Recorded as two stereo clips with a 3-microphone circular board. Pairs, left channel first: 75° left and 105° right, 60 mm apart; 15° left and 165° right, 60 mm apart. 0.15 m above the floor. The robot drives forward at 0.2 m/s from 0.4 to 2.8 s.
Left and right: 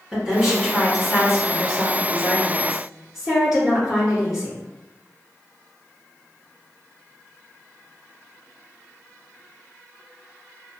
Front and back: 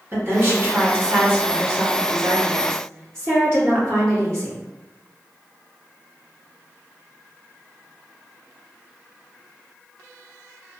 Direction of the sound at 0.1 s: 170° left.